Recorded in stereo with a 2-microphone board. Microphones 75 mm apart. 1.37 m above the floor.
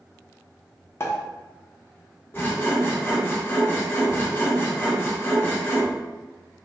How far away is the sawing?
About 0.8 m.